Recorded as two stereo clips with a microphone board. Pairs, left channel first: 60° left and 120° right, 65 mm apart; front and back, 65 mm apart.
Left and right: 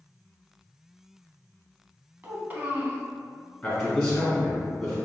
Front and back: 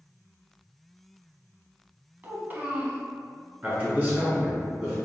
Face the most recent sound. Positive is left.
turn(degrees=140)